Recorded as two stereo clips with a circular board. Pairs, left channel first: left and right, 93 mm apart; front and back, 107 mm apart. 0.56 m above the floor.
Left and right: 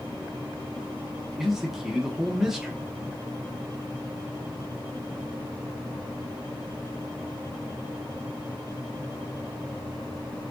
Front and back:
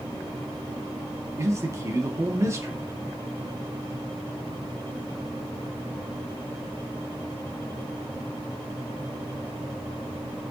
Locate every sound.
1.4 s a man speaking: 170° right, 0.7 m